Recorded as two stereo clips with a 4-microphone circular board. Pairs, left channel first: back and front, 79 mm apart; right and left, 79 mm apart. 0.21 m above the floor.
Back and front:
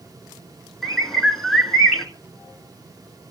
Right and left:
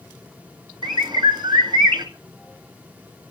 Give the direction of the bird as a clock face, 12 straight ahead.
9 o'clock.